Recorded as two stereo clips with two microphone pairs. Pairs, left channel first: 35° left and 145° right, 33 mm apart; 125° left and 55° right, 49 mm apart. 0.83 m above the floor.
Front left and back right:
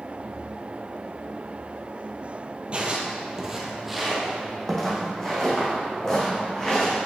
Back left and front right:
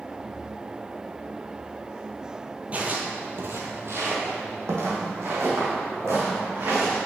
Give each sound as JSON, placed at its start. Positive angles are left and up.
{"t": 2.7, "sound": "footsteps", "azimuth_deg": -105, "distance_m": 1.2}